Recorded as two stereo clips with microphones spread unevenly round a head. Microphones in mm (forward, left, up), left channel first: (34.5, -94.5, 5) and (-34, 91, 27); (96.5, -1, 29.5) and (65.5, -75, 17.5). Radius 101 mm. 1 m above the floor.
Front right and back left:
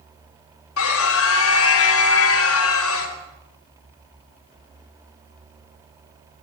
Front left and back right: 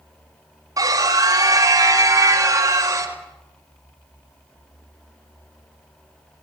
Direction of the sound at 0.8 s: 70° right.